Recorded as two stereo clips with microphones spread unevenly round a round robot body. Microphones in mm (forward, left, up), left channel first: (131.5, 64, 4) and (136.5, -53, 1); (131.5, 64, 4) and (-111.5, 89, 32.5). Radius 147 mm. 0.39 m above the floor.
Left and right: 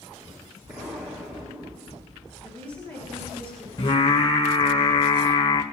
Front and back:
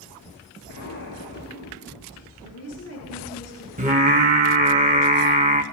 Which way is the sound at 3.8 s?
120° left.